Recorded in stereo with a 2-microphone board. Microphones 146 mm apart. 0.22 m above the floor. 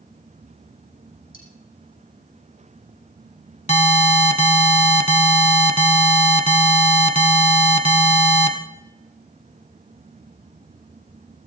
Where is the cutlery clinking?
70° left (ahead or behind), 6 m.